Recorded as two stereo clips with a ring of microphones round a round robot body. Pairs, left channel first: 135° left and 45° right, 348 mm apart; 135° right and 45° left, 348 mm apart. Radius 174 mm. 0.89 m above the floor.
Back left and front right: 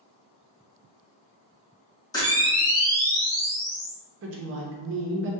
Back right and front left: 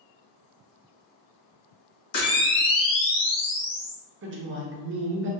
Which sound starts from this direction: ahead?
A woman speaking, at 4.2 s.